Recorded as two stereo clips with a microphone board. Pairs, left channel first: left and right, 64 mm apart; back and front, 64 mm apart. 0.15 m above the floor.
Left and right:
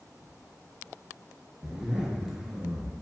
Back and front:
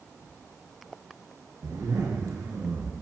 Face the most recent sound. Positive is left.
turn(degrees=-5)